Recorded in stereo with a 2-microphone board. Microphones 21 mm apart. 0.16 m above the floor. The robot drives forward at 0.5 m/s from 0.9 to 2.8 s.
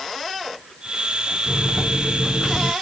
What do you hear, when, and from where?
1.5 s a microwave: 20° right (ahead or behind), 1.0 m